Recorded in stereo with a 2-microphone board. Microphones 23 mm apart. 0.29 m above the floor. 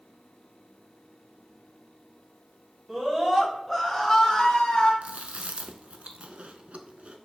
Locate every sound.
2.9 s a scream: 30° right (ahead or behind), 1.6 m; by 4.9 s 45° left (ahead or behind), 2 m
5.0 s chewing: 85° right, 0.5 m